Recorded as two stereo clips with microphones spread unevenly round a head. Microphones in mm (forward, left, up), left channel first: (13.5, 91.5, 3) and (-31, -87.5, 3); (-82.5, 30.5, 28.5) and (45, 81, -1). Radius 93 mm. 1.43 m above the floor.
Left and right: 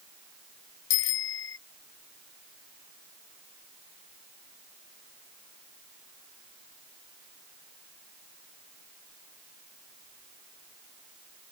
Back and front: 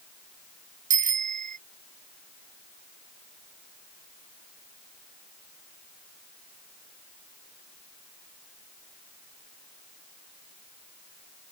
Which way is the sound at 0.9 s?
50° left.